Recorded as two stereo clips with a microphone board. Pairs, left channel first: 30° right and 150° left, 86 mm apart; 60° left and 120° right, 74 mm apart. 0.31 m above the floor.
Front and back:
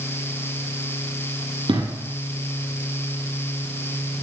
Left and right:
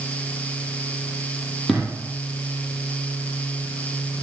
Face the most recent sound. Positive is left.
turn(degrees=150)